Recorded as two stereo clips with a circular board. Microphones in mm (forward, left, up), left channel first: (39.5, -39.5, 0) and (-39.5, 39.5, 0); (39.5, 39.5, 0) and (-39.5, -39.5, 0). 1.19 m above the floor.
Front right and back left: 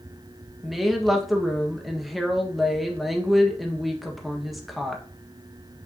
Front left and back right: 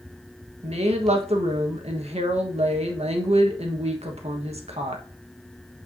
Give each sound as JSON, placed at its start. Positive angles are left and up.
{"t": 0.6, "sound": "a woman speaking", "azimuth_deg": -135, "distance_m": 1.5}